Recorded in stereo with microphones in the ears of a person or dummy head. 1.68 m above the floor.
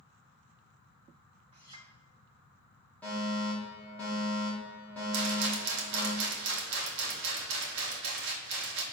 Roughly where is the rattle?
Right.